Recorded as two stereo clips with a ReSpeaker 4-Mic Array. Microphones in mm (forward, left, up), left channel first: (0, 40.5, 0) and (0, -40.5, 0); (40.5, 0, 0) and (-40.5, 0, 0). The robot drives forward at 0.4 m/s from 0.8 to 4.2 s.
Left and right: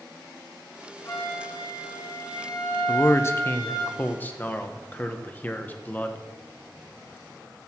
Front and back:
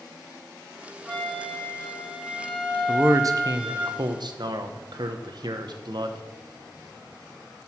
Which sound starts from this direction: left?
A flute, at 1.1 s.